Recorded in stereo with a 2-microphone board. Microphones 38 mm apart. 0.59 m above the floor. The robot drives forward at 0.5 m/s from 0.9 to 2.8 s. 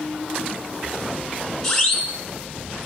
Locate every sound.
1.6 s a siren: 10° left (ahead or behind), 5.5 m